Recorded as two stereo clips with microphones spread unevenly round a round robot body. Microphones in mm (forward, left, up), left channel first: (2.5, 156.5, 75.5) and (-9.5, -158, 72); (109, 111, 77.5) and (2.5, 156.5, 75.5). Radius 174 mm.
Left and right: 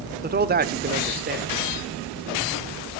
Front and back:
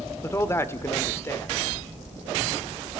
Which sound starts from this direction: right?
A man speaking, at 0.2 s.